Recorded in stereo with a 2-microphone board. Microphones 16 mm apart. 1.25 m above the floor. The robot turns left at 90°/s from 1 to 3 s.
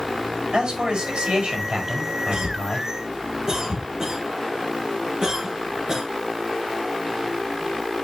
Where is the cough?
75° right (ahead or behind), 2.0 m; by 6.0 s 40° right (ahead or behind), 2.0 m.